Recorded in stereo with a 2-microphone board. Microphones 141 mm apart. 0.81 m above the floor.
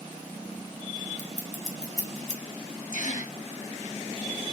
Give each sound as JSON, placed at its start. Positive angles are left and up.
{"t": 1.2, "sound": "scissors", "side_deg": 60, "distance_m": 0.8}
{"t": 2.9, "sound": "a gasp", "side_deg": 70, "distance_m": 0.7}